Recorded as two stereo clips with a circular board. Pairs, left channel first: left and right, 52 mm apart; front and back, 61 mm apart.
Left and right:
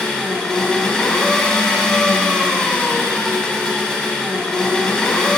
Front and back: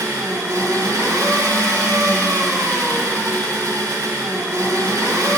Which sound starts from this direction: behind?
An engine running, at 0.0 s.